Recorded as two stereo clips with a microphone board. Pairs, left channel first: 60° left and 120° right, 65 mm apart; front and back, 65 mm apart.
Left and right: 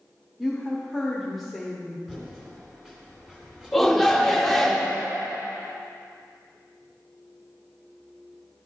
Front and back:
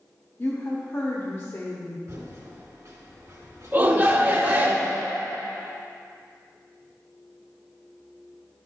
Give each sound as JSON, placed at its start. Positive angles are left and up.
{"t": 0.4, "sound": "a woman speaking", "azimuth_deg": -30, "distance_m": 1.1}
{"t": 2.1, "sound": "typing on a keyboard", "azimuth_deg": 165, "distance_m": 2.5}
{"t": 3.7, "sound": "a shout", "azimuth_deg": 145, "distance_m": 0.8}